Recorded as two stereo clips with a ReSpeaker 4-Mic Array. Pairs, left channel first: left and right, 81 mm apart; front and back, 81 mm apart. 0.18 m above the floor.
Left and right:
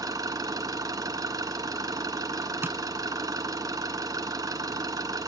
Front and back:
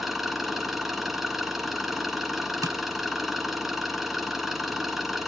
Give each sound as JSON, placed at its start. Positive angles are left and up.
{"t": 0.0, "sound": "an engine running", "azimuth_deg": -95, "distance_m": 1.3}
{"t": 2.6, "sound": "tapping", "azimuth_deg": -145, "distance_m": 0.6}